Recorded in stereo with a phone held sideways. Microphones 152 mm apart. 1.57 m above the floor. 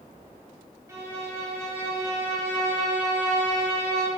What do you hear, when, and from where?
0.9 s a violin: 20° right (ahead or behind), 1.8 m